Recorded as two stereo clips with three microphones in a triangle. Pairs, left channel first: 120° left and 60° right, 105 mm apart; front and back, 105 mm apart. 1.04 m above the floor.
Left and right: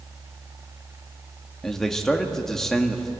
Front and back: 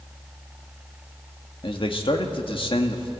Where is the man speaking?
35° left, 1.6 m.